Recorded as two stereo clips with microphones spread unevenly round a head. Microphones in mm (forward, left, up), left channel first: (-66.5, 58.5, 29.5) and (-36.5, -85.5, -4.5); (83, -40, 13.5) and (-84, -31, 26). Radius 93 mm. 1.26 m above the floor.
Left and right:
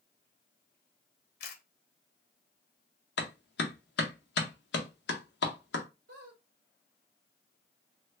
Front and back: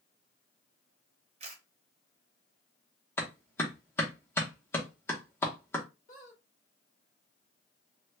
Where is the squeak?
45° right, 1.7 m.